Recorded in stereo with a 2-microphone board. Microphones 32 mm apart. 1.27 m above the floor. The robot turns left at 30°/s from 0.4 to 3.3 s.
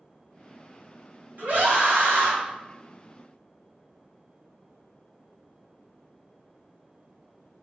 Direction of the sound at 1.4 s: 50° right (ahead or behind).